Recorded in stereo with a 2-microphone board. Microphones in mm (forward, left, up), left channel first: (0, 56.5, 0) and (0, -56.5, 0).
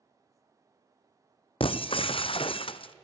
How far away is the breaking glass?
About 0.8 m.